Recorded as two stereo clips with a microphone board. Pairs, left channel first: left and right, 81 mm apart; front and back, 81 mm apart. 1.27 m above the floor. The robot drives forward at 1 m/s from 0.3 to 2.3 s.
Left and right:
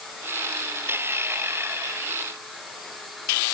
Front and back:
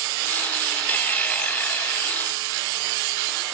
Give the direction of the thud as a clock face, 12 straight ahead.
No thud in this recording.